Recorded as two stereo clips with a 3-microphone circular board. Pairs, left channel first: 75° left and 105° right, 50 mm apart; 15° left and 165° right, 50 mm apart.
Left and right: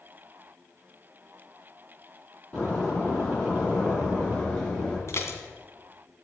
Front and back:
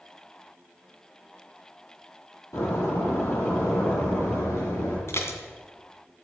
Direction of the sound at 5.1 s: 45° left.